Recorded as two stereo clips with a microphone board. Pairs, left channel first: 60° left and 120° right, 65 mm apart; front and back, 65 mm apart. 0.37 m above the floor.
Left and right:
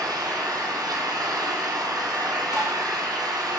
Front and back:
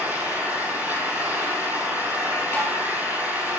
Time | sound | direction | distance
0.0 | an engine running | 115° right | 3 m
2.5 | tapping | 55° left | 5 m